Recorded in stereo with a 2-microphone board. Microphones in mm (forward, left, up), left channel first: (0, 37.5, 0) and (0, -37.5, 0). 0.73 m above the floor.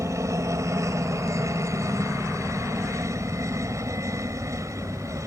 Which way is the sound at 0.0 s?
45° right (ahead or behind).